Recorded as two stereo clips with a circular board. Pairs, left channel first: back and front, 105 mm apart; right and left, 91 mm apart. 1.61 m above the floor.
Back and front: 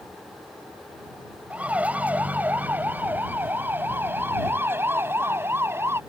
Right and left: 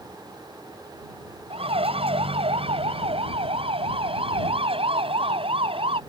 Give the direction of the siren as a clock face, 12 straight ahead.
9 o'clock.